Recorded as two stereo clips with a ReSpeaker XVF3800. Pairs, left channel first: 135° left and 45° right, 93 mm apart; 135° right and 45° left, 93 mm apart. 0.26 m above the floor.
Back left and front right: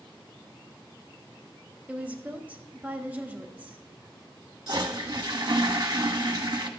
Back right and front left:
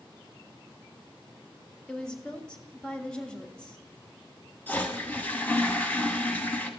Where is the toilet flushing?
70° right, 1.0 m.